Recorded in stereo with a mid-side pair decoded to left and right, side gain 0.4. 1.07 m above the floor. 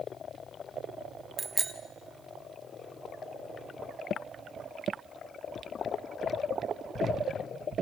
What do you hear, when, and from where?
1.4 s a bicycle bell: 30° right, 2.5 m